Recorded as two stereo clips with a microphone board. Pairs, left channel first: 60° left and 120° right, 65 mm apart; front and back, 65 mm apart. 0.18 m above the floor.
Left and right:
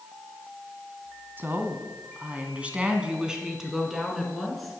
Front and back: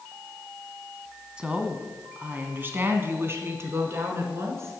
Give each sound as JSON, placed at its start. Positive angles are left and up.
{"t": 1.4, "sound": "a woman speaking", "azimuth_deg": -115, "distance_m": 1.6}